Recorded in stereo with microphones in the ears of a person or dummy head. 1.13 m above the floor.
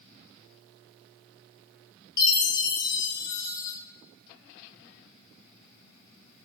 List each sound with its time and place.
2.2 s a chime: 25° left (ahead or behind), 0.6 m